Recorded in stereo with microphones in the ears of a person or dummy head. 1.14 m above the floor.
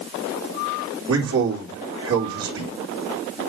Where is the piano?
No piano in this recording.